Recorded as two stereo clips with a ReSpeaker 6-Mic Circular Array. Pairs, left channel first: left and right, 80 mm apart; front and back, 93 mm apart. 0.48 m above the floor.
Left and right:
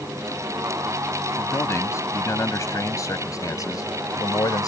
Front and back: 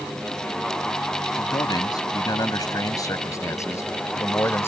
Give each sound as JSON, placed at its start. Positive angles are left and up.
{"t": 1.4, "sound": "a man speaking", "azimuth_deg": 40}